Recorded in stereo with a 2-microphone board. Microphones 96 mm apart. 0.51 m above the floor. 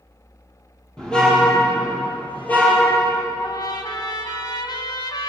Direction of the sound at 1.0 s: 5° left (ahead or behind).